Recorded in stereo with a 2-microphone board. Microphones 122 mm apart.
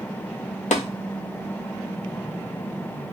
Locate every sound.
0.7 s tapping: 80° left, 0.5 m